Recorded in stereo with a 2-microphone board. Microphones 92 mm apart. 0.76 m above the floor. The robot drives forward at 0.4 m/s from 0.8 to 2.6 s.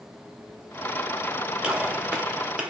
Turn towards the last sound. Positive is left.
turn(degrees=-10)  # may be behind; listen again after turning